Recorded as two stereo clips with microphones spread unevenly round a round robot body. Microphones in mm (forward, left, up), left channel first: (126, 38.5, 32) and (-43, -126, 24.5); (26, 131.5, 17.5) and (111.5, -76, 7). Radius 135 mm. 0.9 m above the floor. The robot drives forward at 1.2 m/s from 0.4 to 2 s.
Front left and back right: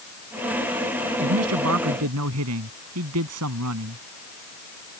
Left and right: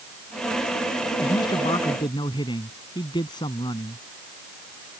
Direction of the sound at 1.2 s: 170° right.